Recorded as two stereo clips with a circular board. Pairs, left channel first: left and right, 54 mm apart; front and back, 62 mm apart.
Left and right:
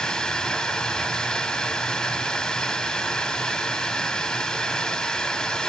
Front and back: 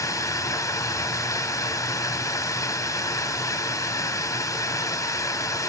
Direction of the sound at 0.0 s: 20° left.